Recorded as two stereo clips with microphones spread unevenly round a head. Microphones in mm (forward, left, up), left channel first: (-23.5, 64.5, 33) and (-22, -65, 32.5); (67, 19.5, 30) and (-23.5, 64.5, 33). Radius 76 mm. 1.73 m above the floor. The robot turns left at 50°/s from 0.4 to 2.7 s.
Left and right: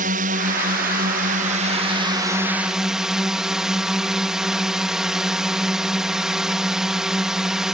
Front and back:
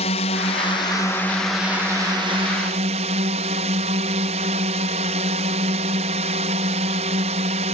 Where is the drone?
60° right; by 7.8 s 175° right.